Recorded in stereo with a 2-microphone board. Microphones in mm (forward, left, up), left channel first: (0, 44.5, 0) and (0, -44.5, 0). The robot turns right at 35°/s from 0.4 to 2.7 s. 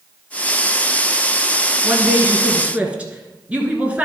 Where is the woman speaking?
20° right (ahead or behind), 1.5 m; by 4.0 s 15° right (ahead or behind), 1.5 m.